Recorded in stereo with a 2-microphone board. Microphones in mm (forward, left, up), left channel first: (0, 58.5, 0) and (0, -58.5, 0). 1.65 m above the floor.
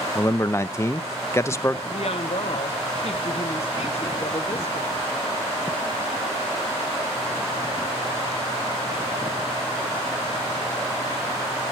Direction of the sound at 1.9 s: 55° left (ahead or behind).